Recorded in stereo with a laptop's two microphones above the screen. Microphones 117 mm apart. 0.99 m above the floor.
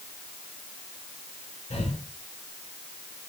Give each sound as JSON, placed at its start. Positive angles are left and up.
{"t": 1.7, "sound": "breathing", "side_deg": 85, "distance_m": 6.0}